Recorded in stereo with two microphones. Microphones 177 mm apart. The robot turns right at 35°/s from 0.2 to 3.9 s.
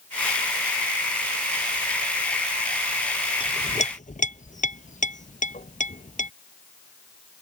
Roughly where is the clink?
Left.